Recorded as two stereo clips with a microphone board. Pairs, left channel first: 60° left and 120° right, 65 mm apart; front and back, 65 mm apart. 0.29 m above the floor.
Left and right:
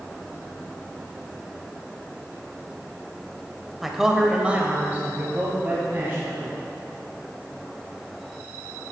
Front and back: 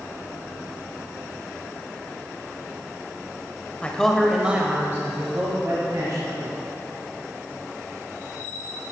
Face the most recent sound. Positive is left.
turn(degrees=-175)